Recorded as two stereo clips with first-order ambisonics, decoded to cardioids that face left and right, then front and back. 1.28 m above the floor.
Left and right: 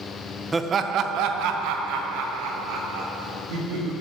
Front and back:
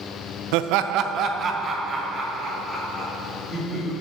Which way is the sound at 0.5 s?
170° right.